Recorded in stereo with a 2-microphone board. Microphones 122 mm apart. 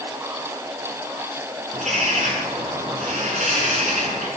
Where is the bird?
75° right (ahead or behind), 4.5 m.